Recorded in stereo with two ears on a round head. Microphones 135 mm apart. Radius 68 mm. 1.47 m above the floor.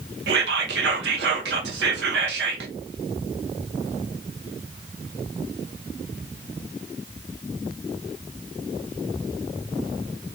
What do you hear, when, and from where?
0.3 s whispering: 75° right (ahead or behind), 0.6 m